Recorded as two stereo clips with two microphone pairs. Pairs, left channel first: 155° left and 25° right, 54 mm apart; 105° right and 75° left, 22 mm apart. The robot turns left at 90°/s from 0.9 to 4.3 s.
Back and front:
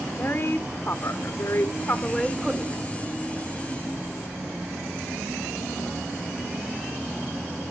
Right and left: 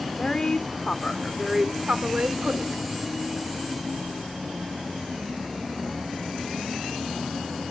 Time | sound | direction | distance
0.2 | a woman speaking | 160° right | 2 m